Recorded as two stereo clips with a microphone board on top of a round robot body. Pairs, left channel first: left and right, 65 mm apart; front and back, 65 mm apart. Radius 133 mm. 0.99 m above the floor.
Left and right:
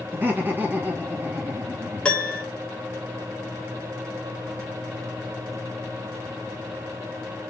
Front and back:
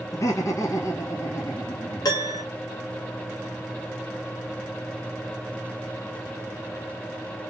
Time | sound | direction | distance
0.1 | laughter | 30° right | 2 m
2.0 | a piano | 15° left | 1.4 m